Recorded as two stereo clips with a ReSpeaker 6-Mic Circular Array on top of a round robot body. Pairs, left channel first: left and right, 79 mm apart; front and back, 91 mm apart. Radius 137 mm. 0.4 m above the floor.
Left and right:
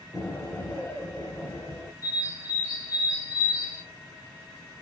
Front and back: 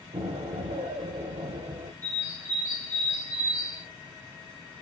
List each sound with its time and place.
0.1 s an explosion: 160° left, 0.7 m
2.0 s a bird: 50° left, 1.4 m